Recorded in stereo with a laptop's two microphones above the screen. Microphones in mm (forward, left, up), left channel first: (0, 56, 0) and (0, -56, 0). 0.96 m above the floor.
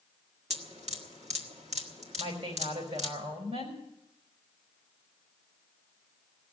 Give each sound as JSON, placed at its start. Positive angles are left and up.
{"t": 0.5, "sound": "dripping", "side_deg": -80, "distance_m": 1.5}
{"t": 2.2, "sound": "a woman speaking", "side_deg": -70, "distance_m": 4.5}